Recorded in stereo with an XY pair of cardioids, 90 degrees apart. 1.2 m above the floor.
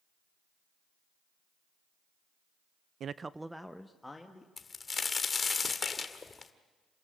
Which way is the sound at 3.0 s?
65° right.